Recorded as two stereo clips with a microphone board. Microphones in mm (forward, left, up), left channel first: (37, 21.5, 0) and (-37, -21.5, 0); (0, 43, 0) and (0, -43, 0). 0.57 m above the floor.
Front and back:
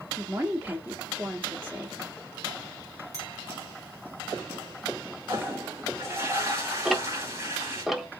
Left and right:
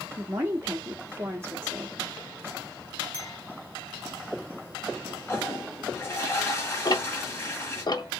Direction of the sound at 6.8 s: 125° left.